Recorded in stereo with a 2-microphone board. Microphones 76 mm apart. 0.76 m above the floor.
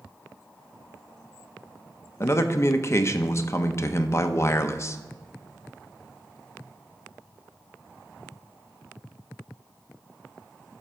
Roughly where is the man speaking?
Left.